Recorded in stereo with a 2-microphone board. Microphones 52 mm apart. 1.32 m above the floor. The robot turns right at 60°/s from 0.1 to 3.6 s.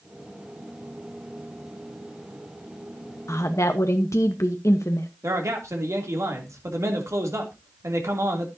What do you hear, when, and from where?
3.3 s a woman speaking: 75° left (ahead or behind), 1.1 m; by 5.1 s 80° left, 1.1 m
5.2 s a man speaking: 75° right (ahead or behind), 3 m